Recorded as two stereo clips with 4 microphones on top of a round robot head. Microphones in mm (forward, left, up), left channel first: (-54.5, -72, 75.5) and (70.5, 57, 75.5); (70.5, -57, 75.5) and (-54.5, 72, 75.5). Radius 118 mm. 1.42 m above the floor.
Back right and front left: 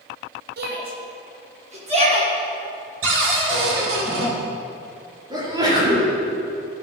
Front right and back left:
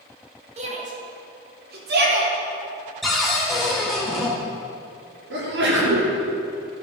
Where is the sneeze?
115° left, 4.5 m.